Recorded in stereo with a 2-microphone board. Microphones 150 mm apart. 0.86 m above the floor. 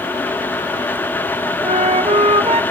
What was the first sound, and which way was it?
A flute, 45° right (ahead or behind).